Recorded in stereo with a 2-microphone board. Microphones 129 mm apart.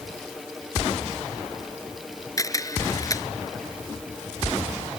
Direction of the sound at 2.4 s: 25° left (ahead or behind).